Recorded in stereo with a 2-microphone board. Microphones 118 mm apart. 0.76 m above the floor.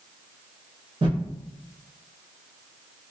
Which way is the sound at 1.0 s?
45° right (ahead or behind).